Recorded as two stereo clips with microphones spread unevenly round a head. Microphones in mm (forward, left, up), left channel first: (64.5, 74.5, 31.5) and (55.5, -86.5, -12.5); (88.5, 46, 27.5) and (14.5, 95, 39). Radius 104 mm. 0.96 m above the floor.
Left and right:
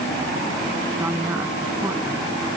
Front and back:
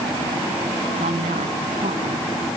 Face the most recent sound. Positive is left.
turn(degrees=-175)